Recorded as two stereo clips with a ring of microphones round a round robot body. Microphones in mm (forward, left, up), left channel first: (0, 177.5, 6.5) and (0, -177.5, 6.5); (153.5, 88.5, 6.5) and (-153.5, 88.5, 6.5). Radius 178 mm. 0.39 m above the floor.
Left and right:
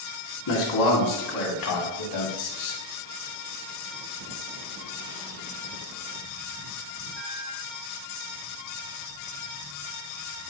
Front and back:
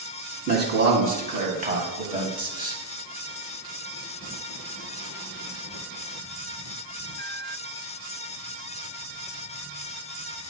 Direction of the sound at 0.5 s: 125° left.